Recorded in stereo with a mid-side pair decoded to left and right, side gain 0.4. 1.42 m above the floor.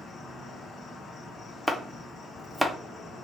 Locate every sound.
0.0 s an insect: 55° left, 0.8 m
1.7 s chopping: 5° right, 0.6 m